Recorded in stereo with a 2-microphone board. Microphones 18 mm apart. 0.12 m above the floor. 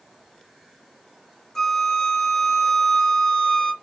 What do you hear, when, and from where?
1.6 s a flute: 25° left (ahead or behind), 0.8 m